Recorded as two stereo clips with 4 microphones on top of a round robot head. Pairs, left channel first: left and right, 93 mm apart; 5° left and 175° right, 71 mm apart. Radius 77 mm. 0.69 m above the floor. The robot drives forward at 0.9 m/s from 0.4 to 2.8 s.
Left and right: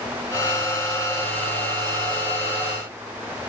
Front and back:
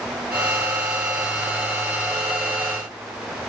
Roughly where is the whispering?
I don't hear whispering.